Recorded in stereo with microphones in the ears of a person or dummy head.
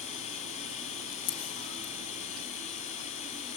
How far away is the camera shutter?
About 3.5 m.